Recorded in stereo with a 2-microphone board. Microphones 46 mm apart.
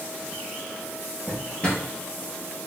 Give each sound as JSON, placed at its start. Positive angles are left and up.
{"t": 1.3, "sound": "a drawer", "side_deg": 20, "distance_m": 1.5}